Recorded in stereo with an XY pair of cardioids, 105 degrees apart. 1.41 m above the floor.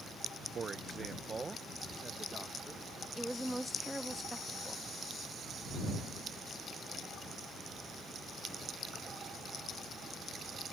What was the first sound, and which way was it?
A man speaking, 45° right.